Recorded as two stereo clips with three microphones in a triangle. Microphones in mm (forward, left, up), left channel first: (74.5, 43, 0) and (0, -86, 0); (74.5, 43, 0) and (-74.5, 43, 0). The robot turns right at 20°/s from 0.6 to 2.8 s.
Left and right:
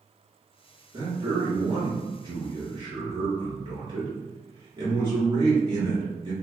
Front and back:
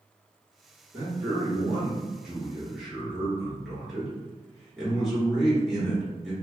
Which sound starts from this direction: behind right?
A man speaking, at 0.9 s.